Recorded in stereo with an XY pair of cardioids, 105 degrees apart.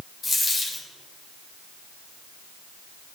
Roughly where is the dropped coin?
Ahead left.